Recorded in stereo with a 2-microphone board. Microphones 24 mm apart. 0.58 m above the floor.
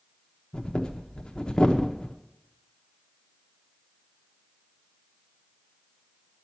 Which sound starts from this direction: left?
Breathing, at 0.5 s.